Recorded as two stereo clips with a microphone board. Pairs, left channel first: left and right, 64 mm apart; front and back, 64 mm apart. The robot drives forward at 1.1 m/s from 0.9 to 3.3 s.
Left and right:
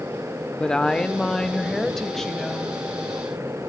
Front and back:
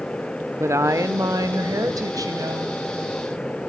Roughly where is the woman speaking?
Behind.